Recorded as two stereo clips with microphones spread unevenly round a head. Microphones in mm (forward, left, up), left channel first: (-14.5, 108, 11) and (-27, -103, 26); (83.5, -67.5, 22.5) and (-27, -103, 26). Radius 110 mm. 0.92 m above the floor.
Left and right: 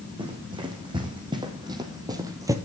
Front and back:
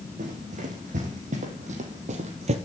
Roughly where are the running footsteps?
Behind.